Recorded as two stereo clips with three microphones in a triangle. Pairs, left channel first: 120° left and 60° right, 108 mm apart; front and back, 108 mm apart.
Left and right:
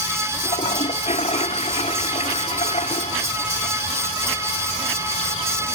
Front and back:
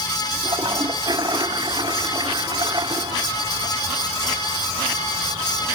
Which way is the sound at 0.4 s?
130° left.